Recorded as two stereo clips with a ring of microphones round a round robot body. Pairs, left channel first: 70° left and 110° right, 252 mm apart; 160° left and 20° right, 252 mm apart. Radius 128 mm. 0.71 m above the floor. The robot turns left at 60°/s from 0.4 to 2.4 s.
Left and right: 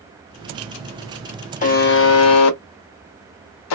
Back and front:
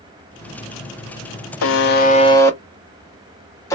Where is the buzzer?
125° left, 0.6 m; by 3.8 s 80° left, 0.6 m.